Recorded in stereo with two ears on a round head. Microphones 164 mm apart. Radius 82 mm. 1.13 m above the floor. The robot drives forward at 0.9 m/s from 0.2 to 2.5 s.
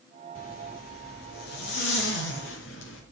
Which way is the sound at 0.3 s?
50° left (ahead or behind).